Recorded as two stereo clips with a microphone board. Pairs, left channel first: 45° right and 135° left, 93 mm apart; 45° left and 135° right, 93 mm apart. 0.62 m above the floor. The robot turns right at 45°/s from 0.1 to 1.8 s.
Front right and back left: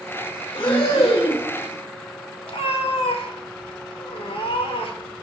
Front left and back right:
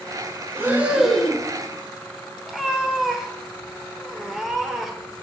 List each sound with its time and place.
0.6 s breathing: 70° right, 1.0 m; by 1.5 s 30° right, 1.0 m
2.5 s a cat meowing: 50° right, 0.8 m